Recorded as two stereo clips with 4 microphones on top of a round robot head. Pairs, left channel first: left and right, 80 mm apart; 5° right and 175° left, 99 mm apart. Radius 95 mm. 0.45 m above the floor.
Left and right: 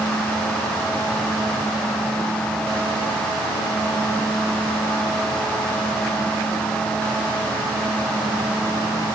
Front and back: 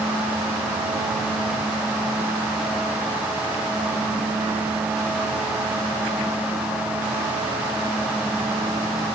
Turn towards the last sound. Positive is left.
No sound to turn to.